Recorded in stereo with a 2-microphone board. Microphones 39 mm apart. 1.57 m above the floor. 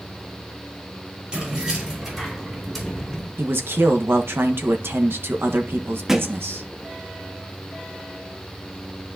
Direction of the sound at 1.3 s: 20° right (ahead or behind).